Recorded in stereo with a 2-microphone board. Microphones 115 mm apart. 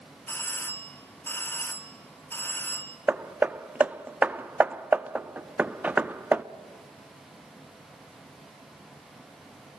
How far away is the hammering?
About 0.6 m.